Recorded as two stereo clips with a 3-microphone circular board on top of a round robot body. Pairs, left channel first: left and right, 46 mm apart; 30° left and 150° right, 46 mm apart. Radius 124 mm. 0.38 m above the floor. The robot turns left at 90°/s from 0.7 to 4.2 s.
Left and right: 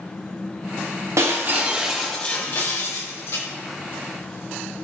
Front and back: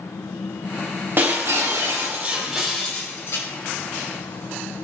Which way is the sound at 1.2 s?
110° right.